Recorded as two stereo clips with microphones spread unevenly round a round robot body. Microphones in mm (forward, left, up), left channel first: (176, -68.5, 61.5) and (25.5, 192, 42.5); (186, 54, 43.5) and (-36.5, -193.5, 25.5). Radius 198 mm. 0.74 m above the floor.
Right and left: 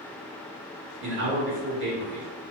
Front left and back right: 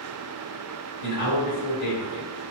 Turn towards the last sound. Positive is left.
turn(degrees=75)